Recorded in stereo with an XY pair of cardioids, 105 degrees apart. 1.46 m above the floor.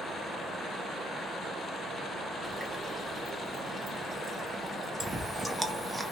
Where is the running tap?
15° right, 1.5 m.